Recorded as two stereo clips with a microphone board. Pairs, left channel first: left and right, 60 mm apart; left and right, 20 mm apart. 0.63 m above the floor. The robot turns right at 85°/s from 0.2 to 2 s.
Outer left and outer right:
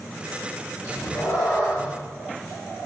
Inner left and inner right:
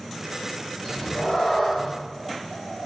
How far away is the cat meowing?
About 1.6 m.